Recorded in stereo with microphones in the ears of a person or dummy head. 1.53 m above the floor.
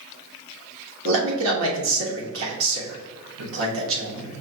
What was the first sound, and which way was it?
A man speaking, 80° right.